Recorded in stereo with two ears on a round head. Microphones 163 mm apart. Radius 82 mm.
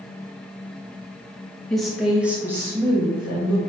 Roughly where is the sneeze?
I don't hear a sneeze.